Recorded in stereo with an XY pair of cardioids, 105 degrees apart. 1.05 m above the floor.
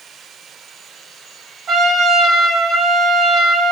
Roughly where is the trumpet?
Ahead right.